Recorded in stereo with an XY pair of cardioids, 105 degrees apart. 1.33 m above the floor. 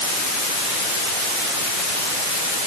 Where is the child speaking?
I don't hear a child speaking.